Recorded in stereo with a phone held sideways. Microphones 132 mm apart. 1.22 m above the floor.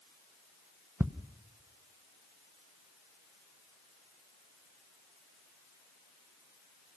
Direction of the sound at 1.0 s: 15° right (ahead or behind).